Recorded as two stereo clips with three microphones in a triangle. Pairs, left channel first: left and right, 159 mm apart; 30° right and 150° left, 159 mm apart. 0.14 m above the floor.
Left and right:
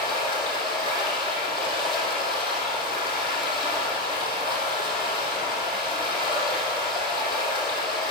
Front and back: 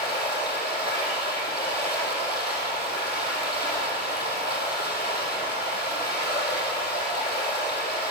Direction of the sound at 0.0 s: 30° right.